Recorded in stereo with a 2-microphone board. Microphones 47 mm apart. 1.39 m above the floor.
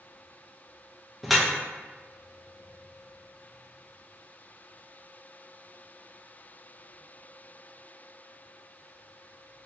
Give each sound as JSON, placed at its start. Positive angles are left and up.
{"t": 1.2, "sound": "dripping", "side_deg": 0, "distance_m": 0.6}